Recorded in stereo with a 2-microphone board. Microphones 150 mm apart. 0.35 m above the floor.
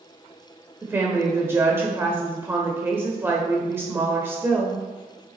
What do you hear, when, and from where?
0.8 s a woman speaking: 15° right (ahead or behind), 0.9 m